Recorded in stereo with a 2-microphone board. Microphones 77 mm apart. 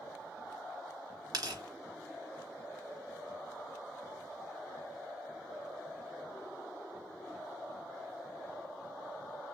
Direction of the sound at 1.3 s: 55° right (ahead or behind).